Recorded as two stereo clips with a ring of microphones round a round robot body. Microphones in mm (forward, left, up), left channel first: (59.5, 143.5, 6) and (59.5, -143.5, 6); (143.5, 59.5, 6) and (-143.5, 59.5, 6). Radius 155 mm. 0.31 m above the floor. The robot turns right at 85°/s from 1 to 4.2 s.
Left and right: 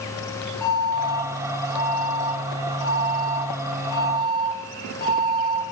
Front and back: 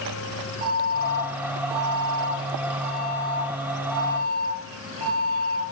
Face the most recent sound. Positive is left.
turn(degrees=30)